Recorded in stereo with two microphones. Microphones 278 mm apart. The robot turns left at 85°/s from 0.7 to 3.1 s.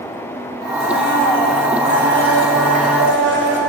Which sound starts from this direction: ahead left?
A blender, at 0.8 s.